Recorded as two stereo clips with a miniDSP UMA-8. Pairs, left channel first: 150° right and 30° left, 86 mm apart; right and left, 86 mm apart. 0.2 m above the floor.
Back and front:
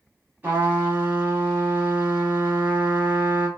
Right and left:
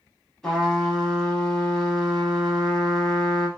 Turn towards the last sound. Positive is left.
turn(degrees=-15)